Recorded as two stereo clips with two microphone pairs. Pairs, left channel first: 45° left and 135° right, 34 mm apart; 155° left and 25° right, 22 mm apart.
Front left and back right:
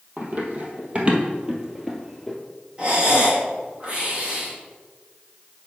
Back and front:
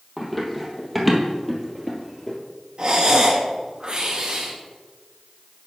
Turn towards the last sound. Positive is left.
turn(degrees=-75)